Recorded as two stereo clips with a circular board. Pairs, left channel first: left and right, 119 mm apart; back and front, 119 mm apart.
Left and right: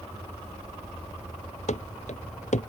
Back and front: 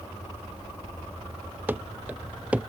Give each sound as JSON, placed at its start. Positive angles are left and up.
{"t": 1.7, "sound": "running footsteps", "azimuth_deg": 75}